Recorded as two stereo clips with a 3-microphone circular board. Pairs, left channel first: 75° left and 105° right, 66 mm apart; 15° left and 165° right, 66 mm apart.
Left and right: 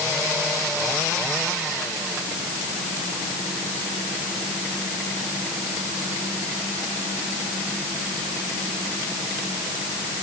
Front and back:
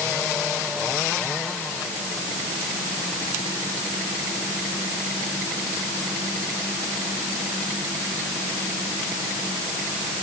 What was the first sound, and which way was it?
Only background noise.